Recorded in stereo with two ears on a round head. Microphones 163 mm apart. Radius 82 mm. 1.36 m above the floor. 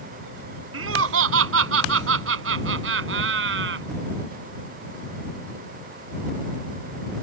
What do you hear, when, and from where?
0.7 s laughter: 90° right; by 3.9 s 70° right (ahead or behind)